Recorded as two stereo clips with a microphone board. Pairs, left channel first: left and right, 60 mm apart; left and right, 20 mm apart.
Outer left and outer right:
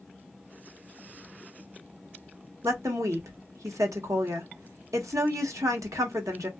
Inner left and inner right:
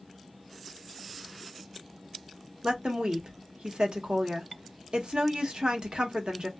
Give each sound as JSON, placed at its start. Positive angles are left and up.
{"t": 2.6, "sound": "a woman speaking", "side_deg": -60, "distance_m": 1.2}